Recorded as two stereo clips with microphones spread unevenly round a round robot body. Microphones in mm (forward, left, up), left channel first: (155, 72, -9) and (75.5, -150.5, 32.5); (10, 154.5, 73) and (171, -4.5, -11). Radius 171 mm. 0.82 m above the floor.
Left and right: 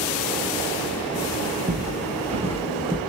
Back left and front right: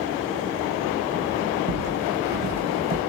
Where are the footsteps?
55° right, 1.6 m; by 3.0 s 85° right, 0.8 m.